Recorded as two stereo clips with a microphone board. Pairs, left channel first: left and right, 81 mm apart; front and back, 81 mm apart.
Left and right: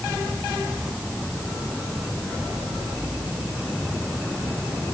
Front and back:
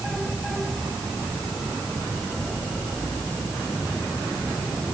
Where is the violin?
I don't hear a violin.